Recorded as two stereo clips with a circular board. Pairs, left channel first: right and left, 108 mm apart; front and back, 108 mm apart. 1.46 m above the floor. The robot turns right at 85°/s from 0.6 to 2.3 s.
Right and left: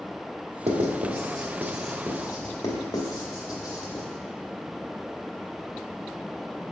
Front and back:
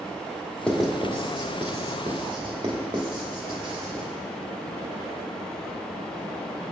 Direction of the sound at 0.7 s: 80° left.